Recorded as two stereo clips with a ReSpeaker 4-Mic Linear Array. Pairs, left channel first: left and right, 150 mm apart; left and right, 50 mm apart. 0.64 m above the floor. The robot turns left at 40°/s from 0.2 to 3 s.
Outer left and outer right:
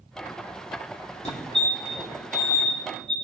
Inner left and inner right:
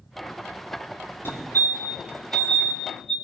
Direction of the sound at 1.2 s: 50° left (ahead or behind).